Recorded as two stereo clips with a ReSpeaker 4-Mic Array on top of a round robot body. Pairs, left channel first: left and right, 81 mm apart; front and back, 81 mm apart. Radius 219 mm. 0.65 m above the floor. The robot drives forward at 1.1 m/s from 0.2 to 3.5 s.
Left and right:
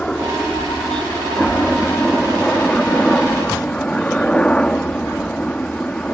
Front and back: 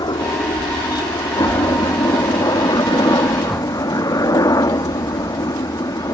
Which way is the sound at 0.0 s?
15° left.